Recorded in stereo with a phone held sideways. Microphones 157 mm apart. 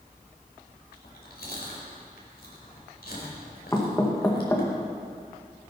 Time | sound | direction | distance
0.9 | chewing | 80° left | 4.5 m
3.7 | knocking | 20° left (ahead or behind) | 1.8 m